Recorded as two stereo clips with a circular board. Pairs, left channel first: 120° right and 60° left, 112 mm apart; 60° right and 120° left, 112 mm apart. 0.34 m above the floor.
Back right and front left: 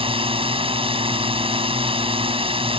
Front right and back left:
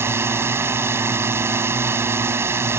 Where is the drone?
60° left.